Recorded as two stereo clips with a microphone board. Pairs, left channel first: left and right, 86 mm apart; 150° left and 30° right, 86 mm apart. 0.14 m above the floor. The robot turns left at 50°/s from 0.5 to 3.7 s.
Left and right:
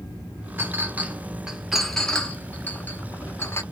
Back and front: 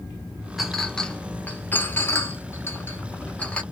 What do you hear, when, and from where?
0.6 s a clink: 120° right, 0.7 m; by 3.6 s 90° left, 0.7 m